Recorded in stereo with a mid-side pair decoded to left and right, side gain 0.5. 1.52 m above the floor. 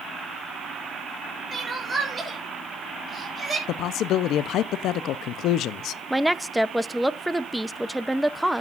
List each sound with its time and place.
1.5 s crying: 30° right, 5 m
3.7 s a man speaking: 70° left, 0.8 m
6.1 s a woman speaking: straight ahead, 0.9 m